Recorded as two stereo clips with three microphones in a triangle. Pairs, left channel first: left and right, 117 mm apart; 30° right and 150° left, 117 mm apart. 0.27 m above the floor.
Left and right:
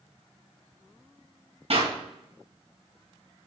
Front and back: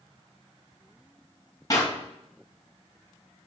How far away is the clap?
About 2 m.